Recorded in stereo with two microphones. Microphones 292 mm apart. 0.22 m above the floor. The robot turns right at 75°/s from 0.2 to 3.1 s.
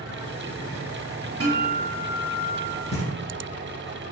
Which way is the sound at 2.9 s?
20° left (ahead or behind).